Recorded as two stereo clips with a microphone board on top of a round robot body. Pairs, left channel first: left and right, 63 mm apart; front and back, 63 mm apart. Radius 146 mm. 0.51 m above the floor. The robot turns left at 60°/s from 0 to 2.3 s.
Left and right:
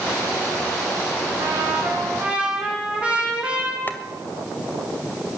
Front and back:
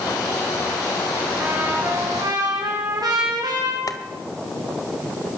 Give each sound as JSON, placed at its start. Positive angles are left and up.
{"t": 1.4, "sound": "a trumpet", "azimuth_deg": -110, "distance_m": 6.0}
{"t": 3.9, "sound": "boiling", "azimuth_deg": 30, "distance_m": 1.8}